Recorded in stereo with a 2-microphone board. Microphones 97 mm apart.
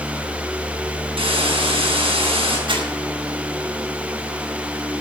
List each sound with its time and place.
1.2 s a hiss: 75° right (ahead or behind), 5.5 m
2.7 s crumpling: 65° right (ahead or behind), 5 m